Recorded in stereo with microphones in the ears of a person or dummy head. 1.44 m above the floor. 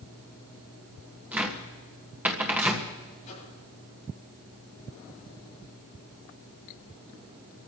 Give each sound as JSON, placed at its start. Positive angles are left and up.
{"t": 1.3, "sound": "a cupboard door", "side_deg": -5, "distance_m": 1.6}
{"t": 3.2, "sound": "a microwave", "side_deg": 40, "distance_m": 9.0}